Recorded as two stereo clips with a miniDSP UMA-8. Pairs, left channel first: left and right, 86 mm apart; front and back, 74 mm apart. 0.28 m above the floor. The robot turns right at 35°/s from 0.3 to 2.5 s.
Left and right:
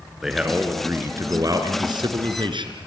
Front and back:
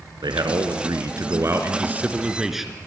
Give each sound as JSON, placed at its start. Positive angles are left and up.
{"t": 0.2, "sound": "a man speaking", "azimuth_deg": -175, "distance_m": 3.0}